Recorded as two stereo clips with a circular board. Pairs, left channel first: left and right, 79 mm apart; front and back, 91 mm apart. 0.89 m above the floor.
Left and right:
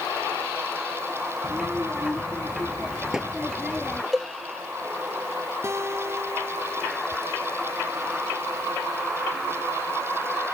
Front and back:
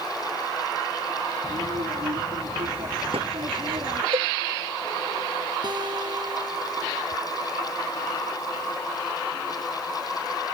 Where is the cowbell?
Straight behind.